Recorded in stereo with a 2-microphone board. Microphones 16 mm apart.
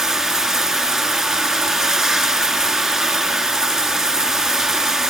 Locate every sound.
0.0 s running water: 30° right (ahead or behind), 1.0 m